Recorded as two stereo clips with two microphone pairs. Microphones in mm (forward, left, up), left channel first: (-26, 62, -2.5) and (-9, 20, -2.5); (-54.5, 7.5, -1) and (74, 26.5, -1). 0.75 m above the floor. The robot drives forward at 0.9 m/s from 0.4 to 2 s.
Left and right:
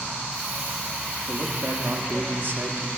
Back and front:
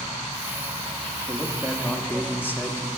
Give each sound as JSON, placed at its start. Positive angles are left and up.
{"t": 1.3, "sound": "a man speaking", "azimuth_deg": -55, "distance_m": 1.0}